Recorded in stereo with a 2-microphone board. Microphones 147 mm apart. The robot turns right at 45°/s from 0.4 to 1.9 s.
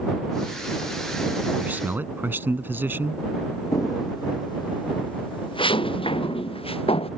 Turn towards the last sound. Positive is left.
turn(degrees=40)  # may be behind; listen again after turning